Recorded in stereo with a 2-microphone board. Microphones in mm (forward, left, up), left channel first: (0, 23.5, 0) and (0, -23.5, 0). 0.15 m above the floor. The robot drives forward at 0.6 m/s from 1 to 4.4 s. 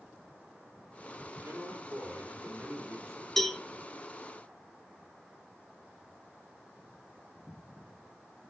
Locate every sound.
1.4 s a man speaking: 50° right (ahead or behind), 4 m; by 3.3 s 60° right (ahead or behind), 3.5 m
3.4 s a cowbell: 10° left (ahead or behind), 1.3 m